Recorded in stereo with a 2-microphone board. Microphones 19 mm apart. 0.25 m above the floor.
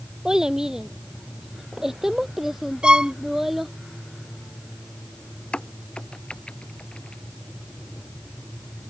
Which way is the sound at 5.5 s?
65° left (ahead or behind).